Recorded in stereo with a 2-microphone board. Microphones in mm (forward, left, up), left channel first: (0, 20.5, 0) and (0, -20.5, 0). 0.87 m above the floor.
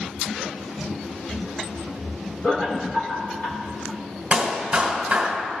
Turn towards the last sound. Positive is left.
turn(degrees=-25)  # may be behind; listen again after turning